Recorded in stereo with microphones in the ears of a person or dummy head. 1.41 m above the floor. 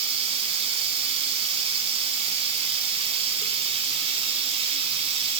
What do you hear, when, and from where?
0.0 s running water: 30° right (ahead or behind), 0.9 m